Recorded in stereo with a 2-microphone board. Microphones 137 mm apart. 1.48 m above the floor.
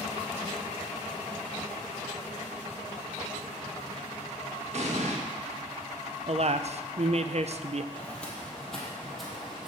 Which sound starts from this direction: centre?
Footsteps, at 7.9 s.